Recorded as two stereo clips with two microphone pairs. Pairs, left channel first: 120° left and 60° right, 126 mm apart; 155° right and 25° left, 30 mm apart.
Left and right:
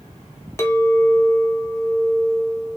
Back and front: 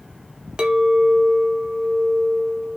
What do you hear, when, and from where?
0.6 s a clink: 60° left, 0.6 m